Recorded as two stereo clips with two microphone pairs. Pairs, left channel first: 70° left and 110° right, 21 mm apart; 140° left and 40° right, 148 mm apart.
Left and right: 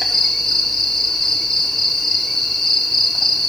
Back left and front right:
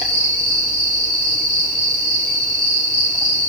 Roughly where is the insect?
Ahead.